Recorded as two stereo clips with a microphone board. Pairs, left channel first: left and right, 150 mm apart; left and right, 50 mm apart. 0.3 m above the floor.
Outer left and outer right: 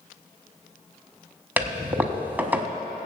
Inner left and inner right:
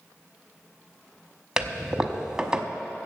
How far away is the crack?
I don't hear a crack.